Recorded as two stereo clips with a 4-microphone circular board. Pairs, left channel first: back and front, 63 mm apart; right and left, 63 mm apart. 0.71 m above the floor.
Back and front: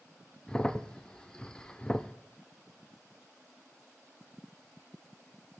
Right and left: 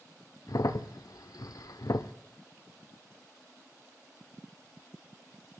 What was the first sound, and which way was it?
A crack, 105° right.